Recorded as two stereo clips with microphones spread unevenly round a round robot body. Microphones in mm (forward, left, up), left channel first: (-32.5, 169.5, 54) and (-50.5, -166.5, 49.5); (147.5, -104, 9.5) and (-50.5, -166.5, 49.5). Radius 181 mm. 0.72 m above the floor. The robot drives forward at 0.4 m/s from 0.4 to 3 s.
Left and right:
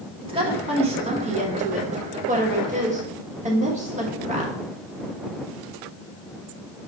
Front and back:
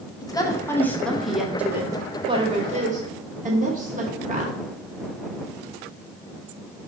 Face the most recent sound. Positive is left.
turn(degrees=-135)